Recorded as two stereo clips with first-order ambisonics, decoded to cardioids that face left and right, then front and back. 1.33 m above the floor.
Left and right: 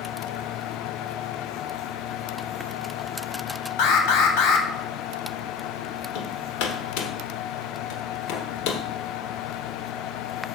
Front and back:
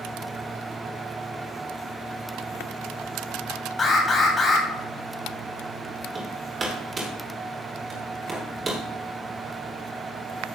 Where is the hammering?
110° left, 2.5 m.